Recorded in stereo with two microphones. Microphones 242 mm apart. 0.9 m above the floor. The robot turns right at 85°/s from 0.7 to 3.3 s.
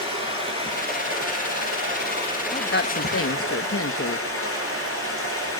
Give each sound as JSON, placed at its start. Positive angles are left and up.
{"t": 0.0, "sound": "running water", "azimuth_deg": -155, "distance_m": 10.0}
{"t": 2.5, "sound": "a woman speaking", "azimuth_deg": 30, "distance_m": 0.7}